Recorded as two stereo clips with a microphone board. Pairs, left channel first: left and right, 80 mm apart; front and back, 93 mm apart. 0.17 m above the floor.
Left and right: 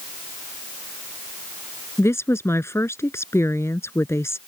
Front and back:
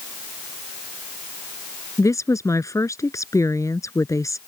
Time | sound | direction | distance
2.0 | a woman speaking | 45° left | ?